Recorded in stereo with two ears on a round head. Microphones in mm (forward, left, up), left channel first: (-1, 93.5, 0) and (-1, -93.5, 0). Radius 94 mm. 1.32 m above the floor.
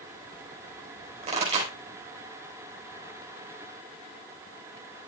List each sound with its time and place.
1.2 s a pop: 30° right (ahead or behind), 4 m